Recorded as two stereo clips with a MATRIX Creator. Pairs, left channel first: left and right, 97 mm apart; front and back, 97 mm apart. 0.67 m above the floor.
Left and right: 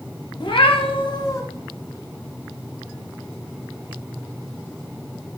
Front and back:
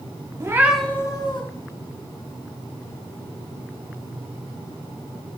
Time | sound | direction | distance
0.4 | a cat meowing | 125° left | 0.7 m